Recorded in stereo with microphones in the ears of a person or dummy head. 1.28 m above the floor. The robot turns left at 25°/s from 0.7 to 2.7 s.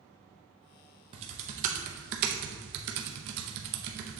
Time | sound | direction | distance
1.1 | typing on a keyboard | 35° right (ahead or behind) | 0.7 m